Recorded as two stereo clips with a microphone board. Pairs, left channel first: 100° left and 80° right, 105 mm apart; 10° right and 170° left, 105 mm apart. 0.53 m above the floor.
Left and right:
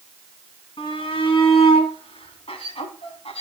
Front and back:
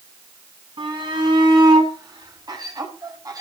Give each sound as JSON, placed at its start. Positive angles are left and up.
{"t": 0.8, "sound": "a shout", "azimuth_deg": 130, "distance_m": 5.5}